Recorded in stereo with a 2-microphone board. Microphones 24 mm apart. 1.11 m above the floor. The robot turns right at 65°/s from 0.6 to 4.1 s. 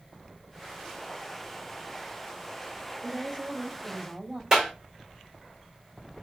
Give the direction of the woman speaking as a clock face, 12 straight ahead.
4 o'clock.